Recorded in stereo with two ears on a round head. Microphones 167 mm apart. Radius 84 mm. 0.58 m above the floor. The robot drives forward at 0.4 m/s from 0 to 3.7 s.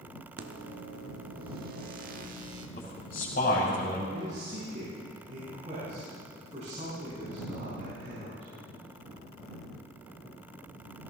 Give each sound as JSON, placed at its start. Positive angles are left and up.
{"t": 0.4, "sound": "a microwave", "side_deg": -60, "distance_m": 1.1}
{"t": 2.8, "sound": "a man speaking", "side_deg": 45, "distance_m": 4.5}
{"t": 4.1, "sound": "a man speaking", "side_deg": -40, "distance_m": 5.5}